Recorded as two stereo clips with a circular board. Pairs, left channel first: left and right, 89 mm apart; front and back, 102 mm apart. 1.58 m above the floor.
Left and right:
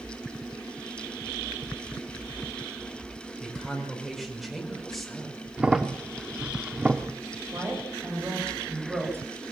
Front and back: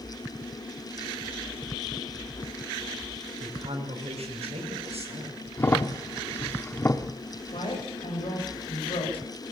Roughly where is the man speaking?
Behind.